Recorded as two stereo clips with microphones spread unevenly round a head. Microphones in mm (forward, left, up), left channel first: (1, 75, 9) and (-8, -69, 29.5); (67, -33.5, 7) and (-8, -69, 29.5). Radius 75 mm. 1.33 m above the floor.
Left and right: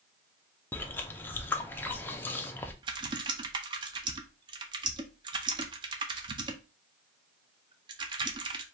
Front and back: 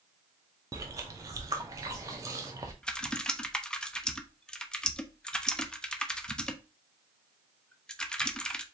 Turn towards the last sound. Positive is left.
turn(degrees=-70)